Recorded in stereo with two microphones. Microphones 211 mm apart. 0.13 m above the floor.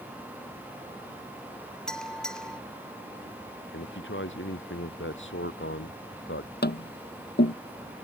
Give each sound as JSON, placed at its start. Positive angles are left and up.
{"t": 1.9, "sound": "a bell", "side_deg": 5}
{"t": 3.7, "sound": "a man speaking", "side_deg": 65}
{"t": 6.6, "sound": "tapping", "side_deg": 50}